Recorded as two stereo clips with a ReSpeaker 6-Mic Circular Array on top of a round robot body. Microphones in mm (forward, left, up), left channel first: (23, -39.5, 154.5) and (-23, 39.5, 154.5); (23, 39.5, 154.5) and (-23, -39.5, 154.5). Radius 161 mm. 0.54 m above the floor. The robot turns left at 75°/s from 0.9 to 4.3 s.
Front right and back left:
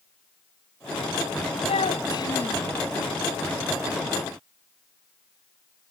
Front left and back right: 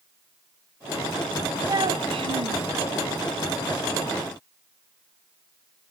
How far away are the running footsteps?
No running footsteps in this recording.